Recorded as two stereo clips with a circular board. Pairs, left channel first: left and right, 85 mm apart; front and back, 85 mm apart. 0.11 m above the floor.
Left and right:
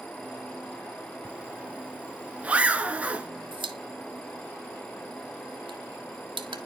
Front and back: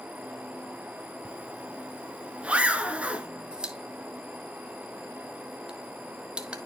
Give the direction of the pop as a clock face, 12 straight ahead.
3 o'clock.